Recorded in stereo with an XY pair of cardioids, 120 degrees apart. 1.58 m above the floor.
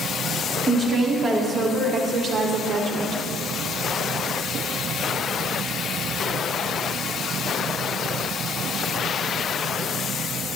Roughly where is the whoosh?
No whoosh in this recording.